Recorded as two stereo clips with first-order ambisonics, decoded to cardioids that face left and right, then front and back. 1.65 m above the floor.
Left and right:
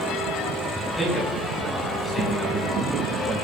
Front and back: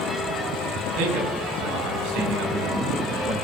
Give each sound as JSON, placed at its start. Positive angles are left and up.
{"t": 1.0, "sound": "a man speaking", "azimuth_deg": 170, "distance_m": 7.0}